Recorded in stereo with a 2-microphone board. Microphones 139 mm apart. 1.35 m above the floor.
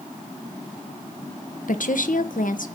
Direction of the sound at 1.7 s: 70° left (ahead or behind).